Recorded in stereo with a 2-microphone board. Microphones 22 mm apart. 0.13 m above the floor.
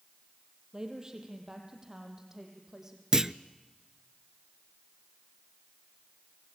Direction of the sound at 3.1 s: 25° right (ahead or behind).